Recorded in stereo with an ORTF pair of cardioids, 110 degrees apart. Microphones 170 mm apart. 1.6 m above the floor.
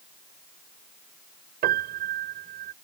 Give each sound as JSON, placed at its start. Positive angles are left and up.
{"t": 1.6, "sound": "a piano", "azimuth_deg": -65}